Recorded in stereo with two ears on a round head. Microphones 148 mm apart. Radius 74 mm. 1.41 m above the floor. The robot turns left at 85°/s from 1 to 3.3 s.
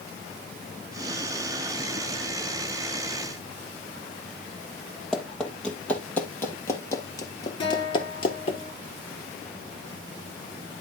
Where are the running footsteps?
5° left (ahead or behind), 3 m; by 8.6 s 40° left (ahead or behind), 1.9 m.